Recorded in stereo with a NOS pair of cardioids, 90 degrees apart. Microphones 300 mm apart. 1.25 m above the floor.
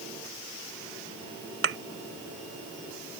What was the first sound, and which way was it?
A thud, 45° right.